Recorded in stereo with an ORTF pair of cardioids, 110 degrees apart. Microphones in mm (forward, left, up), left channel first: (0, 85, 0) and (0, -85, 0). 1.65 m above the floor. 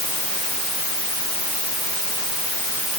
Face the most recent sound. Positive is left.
No sound to turn to.